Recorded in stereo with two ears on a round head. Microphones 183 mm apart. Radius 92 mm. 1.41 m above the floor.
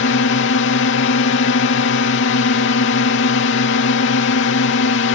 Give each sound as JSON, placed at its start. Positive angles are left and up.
{"t": 0.0, "sound": "a drone", "side_deg": 65}